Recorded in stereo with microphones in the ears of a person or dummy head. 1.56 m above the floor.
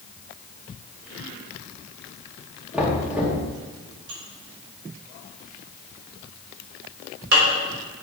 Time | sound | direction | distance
2.7 | knocking | 10° right (ahead or behind) | 2.5 m
4.1 | dishes clattering | 65° right (ahead or behind) | 4 m